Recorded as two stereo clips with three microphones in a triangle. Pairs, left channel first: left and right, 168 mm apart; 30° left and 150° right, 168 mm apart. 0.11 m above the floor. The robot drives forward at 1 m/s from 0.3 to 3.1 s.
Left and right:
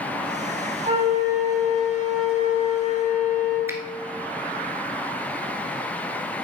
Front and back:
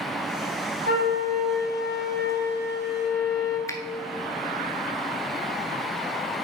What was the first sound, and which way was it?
A flute, 140° right.